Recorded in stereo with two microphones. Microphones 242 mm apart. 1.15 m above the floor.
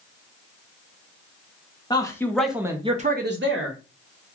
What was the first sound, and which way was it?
A man speaking, 15° left (ahead or behind).